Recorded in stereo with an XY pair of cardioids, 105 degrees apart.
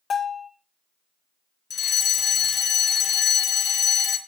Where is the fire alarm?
55° left, 2 m.